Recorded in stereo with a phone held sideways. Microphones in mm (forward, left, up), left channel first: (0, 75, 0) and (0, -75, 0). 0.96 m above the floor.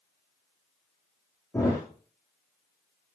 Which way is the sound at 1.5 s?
20° left (ahead or behind).